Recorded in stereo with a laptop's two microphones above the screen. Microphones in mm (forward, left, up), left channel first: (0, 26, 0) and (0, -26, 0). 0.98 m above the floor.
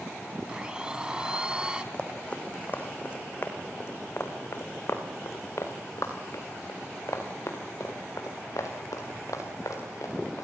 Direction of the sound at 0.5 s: 15° right (ahead or behind).